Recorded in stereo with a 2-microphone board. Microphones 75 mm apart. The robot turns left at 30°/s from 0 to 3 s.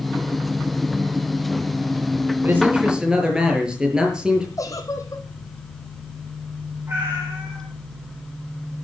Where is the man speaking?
25° right (ahead or behind), 6 m; by 4.5 s 10° right (ahead or behind), 6 m.